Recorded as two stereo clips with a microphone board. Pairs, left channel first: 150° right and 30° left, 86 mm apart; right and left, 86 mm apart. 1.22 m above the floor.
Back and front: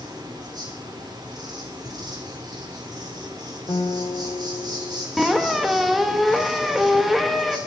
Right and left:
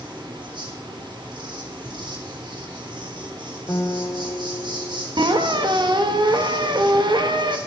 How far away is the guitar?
About 1.0 m.